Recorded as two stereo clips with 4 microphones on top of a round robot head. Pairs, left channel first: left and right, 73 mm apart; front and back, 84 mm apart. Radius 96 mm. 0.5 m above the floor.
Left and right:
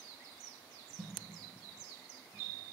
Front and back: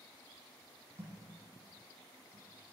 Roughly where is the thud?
Behind right.